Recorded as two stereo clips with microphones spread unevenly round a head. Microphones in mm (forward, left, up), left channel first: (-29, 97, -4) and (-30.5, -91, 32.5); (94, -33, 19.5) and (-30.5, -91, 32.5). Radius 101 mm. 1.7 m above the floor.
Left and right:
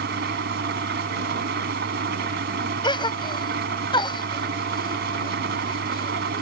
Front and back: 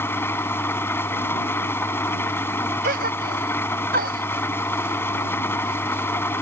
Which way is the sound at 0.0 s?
50° right.